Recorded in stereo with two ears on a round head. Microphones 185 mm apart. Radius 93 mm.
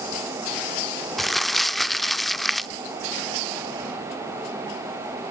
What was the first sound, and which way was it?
Crumpling, centre (ahead or behind).